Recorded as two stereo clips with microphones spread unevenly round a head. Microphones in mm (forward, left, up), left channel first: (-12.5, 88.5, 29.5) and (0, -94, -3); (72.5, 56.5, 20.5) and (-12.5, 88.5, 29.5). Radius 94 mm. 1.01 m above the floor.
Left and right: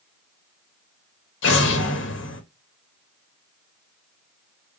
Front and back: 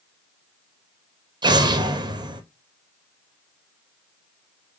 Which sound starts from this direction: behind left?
An explosion, at 1.4 s.